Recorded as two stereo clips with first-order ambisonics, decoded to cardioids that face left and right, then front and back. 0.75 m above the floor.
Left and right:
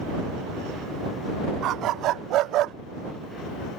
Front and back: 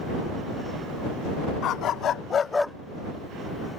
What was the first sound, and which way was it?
A dog barking, 45° right.